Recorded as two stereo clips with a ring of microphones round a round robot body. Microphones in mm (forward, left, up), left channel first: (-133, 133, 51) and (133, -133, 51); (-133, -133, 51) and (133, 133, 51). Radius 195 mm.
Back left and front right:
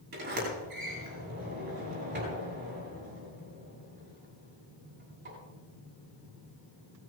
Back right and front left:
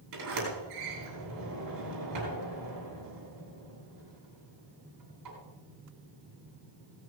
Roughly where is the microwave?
I don't hear a microwave.